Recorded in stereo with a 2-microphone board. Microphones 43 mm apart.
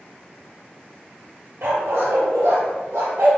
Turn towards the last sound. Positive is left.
turn(degrees=-75)  # may be behind; listen again after turning